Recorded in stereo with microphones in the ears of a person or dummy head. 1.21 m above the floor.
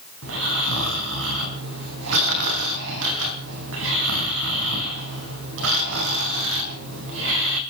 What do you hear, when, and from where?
0.2 s snoring: 80° right, 3.5 m